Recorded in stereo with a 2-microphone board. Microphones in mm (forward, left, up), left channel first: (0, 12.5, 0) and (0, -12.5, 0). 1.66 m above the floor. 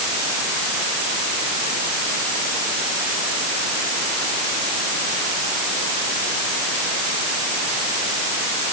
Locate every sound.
Only background noise.